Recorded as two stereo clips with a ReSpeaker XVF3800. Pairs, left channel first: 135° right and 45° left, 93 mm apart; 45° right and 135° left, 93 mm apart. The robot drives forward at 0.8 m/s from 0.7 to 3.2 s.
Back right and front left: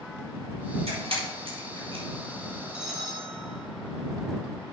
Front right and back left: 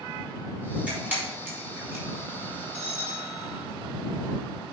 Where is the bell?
130° left, 2 m; by 3.7 s 135° left, 2.5 m.